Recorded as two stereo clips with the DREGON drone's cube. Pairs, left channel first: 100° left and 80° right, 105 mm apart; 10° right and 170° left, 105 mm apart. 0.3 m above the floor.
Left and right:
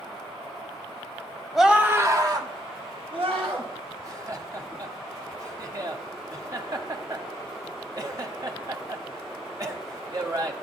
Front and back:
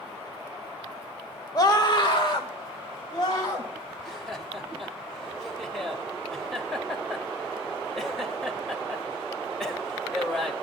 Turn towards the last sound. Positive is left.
turn(degrees=-95)